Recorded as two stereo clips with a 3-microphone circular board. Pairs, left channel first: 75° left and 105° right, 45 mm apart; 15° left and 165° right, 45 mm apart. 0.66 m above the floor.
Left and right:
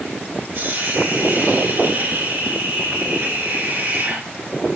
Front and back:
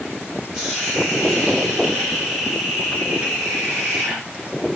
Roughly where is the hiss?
Right.